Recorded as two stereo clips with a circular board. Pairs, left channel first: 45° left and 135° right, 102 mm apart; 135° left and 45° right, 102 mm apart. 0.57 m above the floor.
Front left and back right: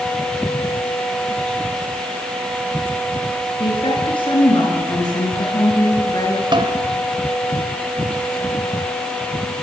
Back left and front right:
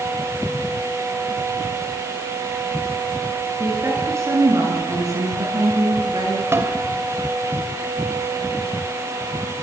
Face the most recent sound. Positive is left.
turn(degrees=-105)